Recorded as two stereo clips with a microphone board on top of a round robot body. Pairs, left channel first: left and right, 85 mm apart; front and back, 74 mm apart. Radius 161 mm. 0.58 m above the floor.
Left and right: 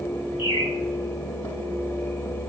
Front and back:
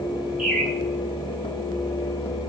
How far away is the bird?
About 5 m.